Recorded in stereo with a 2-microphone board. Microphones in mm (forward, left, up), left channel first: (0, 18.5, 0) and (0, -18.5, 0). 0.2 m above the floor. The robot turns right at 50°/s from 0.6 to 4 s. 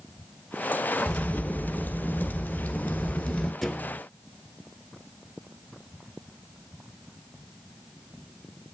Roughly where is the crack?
Ahead.